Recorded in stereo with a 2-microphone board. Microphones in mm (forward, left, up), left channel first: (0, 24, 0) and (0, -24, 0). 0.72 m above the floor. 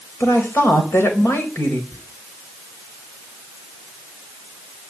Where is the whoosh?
No whoosh in this recording.